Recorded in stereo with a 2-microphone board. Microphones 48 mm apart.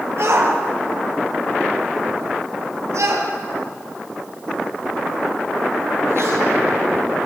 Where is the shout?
65° right (ahead or behind), 4.5 m; by 6.4 s 60° right (ahead or behind), 5 m.